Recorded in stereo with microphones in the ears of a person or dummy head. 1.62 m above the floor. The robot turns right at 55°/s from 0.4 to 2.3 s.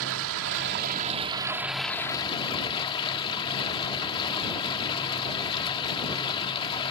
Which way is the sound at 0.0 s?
75° right.